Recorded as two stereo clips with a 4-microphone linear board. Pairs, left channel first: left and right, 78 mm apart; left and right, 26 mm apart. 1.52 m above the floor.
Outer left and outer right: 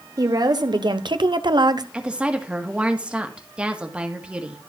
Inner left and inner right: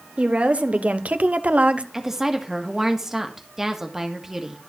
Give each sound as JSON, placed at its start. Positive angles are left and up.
{"t": 0.2, "sound": "a woman speaking", "side_deg": -50, "distance_m": 1.3}
{"t": 1.9, "sound": "a woman speaking", "side_deg": -15, "distance_m": 1.7}